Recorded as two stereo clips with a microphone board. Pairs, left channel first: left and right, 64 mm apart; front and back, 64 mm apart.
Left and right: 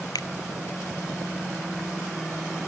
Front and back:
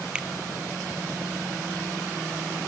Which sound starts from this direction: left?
A finger snap, at 0.1 s.